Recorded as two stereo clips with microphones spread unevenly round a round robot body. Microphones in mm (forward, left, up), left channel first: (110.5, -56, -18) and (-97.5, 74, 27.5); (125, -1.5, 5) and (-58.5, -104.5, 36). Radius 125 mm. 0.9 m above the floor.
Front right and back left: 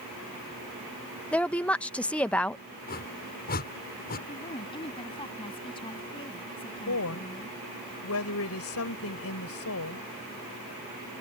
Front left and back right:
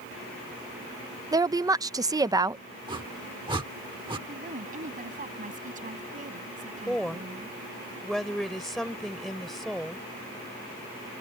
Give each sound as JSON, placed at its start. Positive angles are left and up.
{"t": 1.3, "sound": "a woman speaking", "azimuth_deg": -85}
{"t": 2.9, "sound": "a whoosh", "azimuth_deg": -85}
{"t": 4.3, "sound": "a woman speaking", "azimuth_deg": -100}
{"t": 6.9, "sound": "a woman speaking", "azimuth_deg": -60}